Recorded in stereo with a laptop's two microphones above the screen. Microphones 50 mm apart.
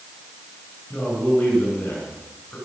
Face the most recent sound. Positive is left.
turn(degrees=15)  # may be behind; listen again after turning